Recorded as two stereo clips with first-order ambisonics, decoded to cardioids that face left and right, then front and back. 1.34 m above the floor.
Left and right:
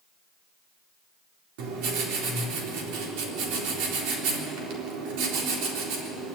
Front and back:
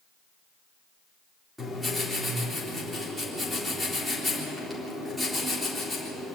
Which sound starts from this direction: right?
Writing, at 1.6 s.